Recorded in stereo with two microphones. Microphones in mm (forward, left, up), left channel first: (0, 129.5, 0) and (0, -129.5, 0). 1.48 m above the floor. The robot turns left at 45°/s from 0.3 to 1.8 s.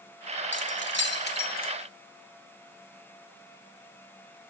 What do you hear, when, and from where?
0.5 s keys jangling: 45° left (ahead or behind), 0.9 m; by 1.7 s 35° left (ahead or behind), 0.9 m